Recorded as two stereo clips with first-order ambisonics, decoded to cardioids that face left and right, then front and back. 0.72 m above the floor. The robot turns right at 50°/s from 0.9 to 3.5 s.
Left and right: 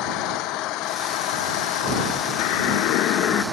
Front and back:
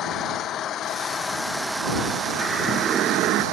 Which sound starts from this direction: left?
A siren, at 2.4 s.